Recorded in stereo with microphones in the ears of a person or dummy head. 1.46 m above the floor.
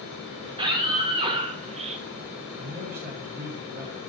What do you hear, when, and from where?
0.5 s a scream: 30° right (ahead or behind), 3 m; by 2.0 s 40° right (ahead or behind), 0.6 m
2.6 s a man speaking: 55° right (ahead or behind), 5.5 m